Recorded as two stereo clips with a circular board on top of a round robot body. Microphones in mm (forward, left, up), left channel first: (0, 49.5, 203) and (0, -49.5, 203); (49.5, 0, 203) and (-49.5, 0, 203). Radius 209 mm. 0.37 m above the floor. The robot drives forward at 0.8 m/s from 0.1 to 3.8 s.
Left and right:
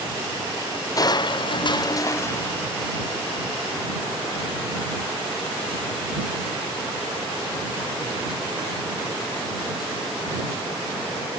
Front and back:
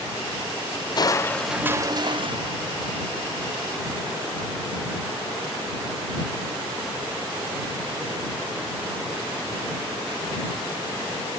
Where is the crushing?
40° left; by 3.8 s 170° left.